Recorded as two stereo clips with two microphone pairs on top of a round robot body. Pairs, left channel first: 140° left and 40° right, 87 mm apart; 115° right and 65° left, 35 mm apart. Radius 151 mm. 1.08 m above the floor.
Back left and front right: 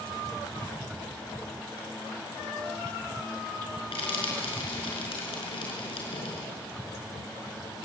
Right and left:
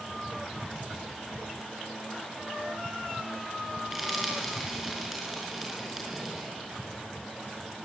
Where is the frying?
145° left, 4.5 m.